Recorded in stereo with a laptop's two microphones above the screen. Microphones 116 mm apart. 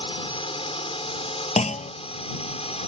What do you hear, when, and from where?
0.0 s a drone: 50° left (ahead or behind); by 2.9 s 60° left (ahead or behind)
1.6 s a clunk: 75° left (ahead or behind)